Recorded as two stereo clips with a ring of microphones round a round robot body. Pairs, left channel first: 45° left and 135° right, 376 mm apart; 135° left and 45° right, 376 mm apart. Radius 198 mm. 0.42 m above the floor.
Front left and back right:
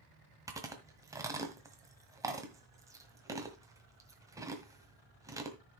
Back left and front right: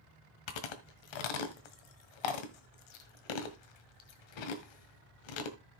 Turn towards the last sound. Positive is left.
turn(degrees=145)